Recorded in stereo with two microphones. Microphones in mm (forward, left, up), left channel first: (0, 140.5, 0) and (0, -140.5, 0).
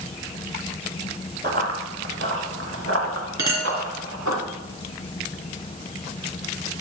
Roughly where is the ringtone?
I don't hear a ringtone.